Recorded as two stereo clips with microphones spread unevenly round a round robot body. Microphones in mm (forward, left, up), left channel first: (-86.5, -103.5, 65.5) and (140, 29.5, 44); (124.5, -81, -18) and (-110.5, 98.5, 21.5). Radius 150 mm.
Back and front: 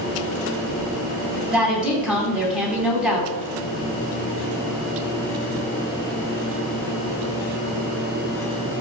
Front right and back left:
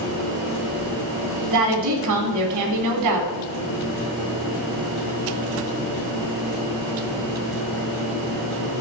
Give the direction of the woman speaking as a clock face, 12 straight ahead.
8 o'clock.